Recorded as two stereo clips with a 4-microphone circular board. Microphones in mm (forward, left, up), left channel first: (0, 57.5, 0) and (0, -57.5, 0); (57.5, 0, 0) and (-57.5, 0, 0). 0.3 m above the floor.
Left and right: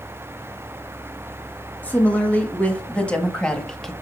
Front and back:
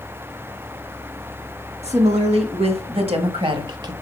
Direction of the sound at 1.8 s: 165° left.